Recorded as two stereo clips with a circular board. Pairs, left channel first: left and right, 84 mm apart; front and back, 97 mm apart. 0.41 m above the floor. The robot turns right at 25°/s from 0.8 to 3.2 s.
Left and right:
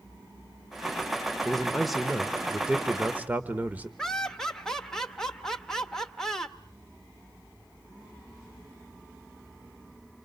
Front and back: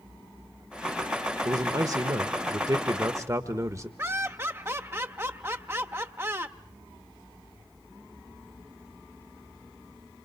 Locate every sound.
1.4 s a man speaking: 170° left, 0.9 m; by 3.9 s 145° right, 0.9 m
4.0 s laughter: 165° left, 0.8 m